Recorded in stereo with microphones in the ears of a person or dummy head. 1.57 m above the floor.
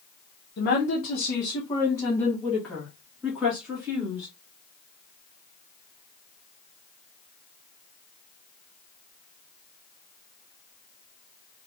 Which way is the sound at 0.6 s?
55° left (ahead or behind).